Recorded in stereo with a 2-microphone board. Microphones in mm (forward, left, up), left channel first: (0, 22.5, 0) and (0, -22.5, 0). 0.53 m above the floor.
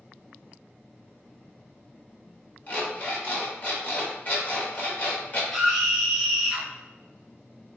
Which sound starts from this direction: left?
An alarm clock, at 2.7 s.